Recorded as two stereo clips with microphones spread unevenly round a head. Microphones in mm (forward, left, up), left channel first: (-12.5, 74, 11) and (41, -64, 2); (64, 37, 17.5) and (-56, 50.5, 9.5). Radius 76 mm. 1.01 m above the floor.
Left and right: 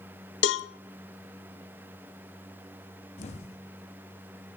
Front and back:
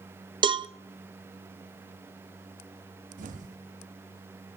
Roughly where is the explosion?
Behind.